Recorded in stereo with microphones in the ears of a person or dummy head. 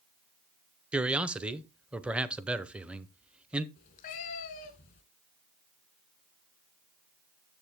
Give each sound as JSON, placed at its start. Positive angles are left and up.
{"t": 0.9, "sound": "a man speaking", "side_deg": -5, "distance_m": 0.6}
{"t": 3.8, "sound": "a cat meowing", "side_deg": 30, "distance_m": 1.2}